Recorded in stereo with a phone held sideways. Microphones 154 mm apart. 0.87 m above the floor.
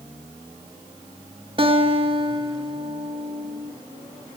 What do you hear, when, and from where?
1.6 s a guitar: 35° right (ahead or behind), 1.0 m